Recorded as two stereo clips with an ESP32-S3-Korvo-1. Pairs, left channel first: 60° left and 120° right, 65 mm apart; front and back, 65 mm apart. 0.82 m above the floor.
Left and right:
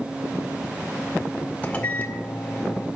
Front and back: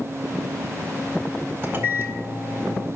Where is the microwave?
130° left, 2.0 m.